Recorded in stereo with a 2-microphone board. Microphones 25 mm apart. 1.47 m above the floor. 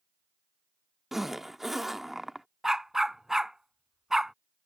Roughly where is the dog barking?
Centre.